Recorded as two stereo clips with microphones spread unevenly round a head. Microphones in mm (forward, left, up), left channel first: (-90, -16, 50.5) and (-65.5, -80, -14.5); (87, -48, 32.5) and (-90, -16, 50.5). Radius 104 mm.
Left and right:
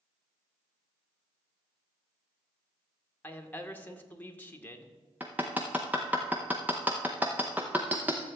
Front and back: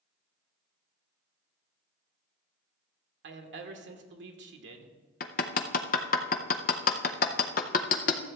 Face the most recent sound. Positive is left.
turn(degrees=40)